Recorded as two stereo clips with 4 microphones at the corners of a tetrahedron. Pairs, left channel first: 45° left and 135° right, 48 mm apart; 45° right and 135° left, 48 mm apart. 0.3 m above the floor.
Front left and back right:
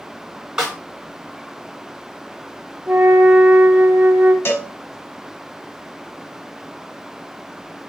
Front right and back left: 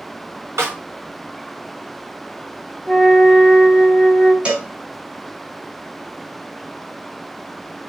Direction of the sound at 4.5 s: 70° left.